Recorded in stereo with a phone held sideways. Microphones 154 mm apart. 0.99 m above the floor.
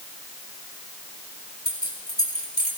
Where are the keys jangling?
85° left, 4 m.